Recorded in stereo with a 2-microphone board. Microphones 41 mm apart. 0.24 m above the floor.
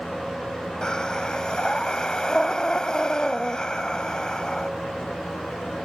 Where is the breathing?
20° left (ahead or behind).